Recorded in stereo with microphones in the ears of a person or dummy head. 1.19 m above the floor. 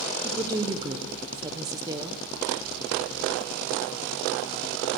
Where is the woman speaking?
15° right (ahead or behind), 0.6 m.